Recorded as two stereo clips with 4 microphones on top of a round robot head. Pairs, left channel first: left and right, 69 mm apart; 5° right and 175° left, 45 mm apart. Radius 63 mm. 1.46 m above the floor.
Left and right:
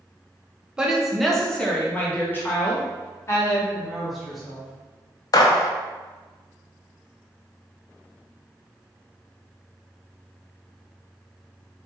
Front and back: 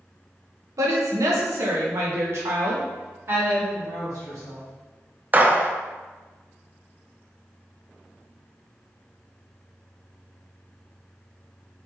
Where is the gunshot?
125° left, 0.6 m.